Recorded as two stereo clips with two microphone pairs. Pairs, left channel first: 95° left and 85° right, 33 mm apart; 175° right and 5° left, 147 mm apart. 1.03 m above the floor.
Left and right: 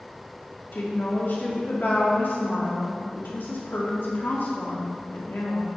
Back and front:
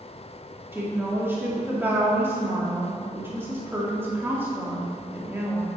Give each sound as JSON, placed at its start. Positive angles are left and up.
{"t": 0.7, "sound": "a woman speaking", "azimuth_deg": 80, "distance_m": 1.8}